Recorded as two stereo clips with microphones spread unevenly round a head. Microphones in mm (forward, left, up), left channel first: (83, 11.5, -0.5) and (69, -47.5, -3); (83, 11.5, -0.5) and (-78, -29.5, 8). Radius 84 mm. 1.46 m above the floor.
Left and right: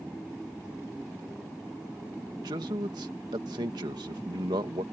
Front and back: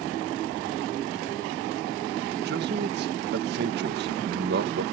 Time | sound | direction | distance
2.4 | a man speaking | 135° right | ?